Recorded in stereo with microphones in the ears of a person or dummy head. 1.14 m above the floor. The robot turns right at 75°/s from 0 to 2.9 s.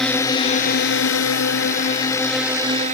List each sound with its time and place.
0.0 s a drone: 5° left; by 3.0 s 140° right